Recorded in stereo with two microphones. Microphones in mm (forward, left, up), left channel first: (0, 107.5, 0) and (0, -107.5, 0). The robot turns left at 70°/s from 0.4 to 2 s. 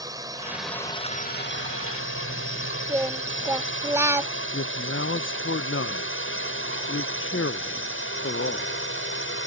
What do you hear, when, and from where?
0.0 s a drone: 15° right (ahead or behind); by 9.5 s 65° left (ahead or behind)
2.9 s singing: 15° right (ahead or behind)
4.5 s a man speaking: 70° left (ahead or behind)